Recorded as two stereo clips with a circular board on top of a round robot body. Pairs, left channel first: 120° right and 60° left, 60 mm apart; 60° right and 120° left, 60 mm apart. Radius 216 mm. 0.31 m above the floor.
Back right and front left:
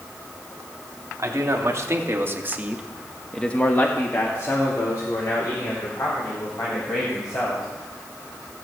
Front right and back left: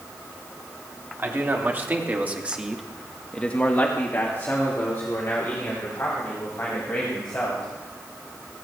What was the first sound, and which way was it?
A man speaking, 70° left.